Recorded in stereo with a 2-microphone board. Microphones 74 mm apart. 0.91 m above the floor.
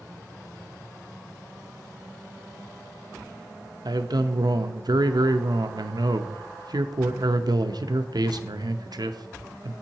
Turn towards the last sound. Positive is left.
turn(degrees=-65)  # may be behind; listen again after turning